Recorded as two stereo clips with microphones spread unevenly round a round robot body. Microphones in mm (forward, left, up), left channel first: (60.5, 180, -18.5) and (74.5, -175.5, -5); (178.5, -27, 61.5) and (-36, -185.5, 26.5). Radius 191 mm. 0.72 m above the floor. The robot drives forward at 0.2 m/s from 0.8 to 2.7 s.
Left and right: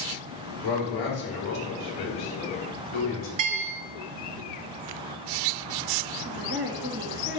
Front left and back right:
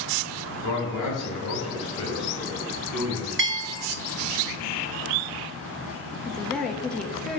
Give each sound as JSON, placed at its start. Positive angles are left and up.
{"t": 0.6, "sound": "a man speaking", "azimuth_deg": 90, "distance_m": 2.5}
{"t": 3.4, "sound": "a bell", "azimuth_deg": -105, "distance_m": 0.9}
{"t": 6.2, "sound": "a woman speaking", "azimuth_deg": -60, "distance_m": 1.0}